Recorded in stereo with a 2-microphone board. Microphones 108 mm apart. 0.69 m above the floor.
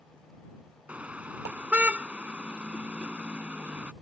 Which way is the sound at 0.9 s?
15° right (ahead or behind).